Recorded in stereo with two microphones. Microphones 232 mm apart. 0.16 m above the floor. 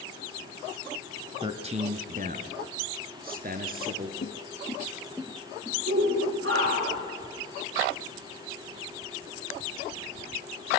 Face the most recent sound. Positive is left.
turn(degrees=-60)  # may be behind; listen again after turning